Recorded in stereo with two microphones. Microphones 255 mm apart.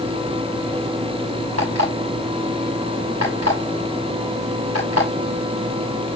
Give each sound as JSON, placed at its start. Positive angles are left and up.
{"t": 1.6, "sound": "an alarm clock", "side_deg": -75, "distance_m": 7.0}